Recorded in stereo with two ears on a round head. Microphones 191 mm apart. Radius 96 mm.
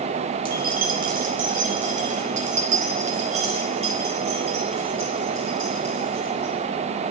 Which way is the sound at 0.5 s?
45° right (ahead or behind).